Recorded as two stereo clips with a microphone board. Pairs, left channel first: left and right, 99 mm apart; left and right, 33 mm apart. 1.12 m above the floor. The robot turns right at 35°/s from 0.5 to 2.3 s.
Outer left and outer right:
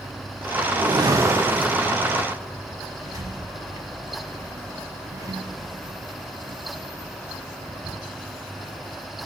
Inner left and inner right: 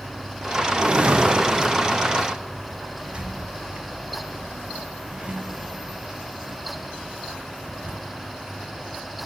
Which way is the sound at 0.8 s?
50° right.